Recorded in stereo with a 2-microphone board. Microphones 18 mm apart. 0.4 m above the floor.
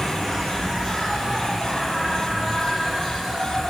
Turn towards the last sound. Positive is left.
turn(degrees=5)  # may be behind; listen again after turning